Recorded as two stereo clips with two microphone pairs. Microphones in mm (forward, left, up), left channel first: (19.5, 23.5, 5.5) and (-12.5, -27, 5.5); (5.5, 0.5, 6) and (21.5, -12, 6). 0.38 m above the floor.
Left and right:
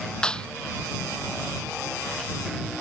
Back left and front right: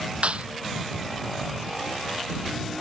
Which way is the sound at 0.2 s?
20° right.